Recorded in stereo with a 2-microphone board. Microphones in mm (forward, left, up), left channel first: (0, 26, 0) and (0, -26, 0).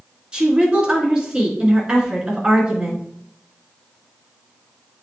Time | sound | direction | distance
0.3 | a woman speaking | 15° right (ahead or behind) | 3 m